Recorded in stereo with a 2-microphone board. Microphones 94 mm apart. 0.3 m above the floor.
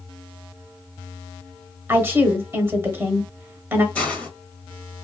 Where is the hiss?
15° left (ahead or behind), 1.4 m.